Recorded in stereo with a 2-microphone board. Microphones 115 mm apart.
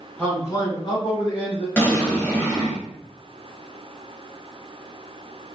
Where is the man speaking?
10° left (ahead or behind), 1.2 m; by 1.7 s 55° left (ahead or behind), 2 m.